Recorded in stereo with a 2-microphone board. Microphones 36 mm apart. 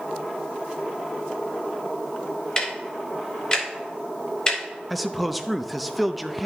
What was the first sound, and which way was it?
Ticking, 25° left (ahead or behind).